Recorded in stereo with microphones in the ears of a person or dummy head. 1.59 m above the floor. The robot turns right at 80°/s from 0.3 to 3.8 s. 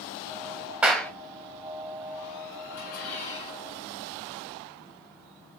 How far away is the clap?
About 0.6 m.